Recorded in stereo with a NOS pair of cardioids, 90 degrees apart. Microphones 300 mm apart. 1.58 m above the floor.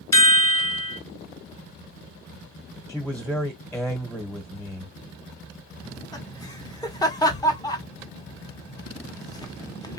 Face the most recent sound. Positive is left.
turn(degrees=15)